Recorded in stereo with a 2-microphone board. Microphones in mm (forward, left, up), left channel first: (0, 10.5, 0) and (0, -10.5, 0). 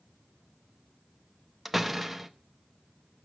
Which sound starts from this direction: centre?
A door slam, at 1.6 s.